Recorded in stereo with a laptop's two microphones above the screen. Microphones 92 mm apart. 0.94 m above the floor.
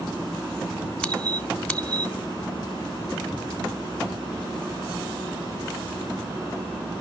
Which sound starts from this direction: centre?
A squeak, at 1.0 s.